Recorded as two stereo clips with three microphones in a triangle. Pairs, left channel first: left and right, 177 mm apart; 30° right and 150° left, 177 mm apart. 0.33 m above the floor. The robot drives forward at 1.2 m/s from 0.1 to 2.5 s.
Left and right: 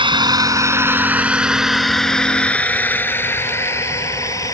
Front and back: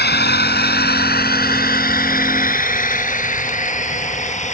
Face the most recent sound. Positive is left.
turn(degrees=20)